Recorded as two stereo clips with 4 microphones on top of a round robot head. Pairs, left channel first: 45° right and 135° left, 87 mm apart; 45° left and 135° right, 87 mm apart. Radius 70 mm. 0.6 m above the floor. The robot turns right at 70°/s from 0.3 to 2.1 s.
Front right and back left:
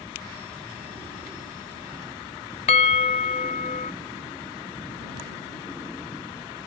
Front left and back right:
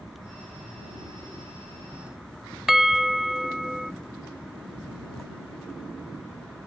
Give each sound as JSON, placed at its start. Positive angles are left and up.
{"t": 2.7, "sound": "a bell", "azimuth_deg": -50}